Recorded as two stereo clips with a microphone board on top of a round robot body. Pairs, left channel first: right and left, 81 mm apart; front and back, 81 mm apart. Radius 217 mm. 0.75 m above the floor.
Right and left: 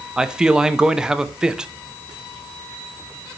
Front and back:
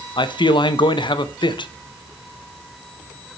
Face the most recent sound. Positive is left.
turn(degrees=10)